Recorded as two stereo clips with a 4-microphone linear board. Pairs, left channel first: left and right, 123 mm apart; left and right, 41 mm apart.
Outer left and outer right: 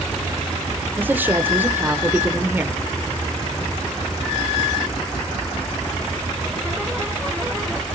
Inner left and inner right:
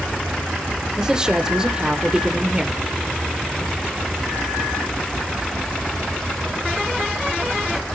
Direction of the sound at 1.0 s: 15° right (ahead or behind).